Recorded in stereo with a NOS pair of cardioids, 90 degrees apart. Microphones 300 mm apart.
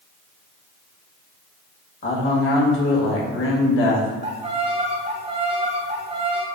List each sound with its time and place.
2.0 s a man speaking: 45° left, 1.4 m
4.2 s a violin: 20° right, 0.7 m